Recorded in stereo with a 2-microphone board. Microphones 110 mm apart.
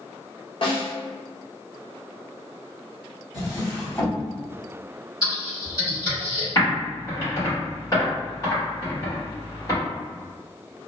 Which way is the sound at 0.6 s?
50° left (ahead or behind).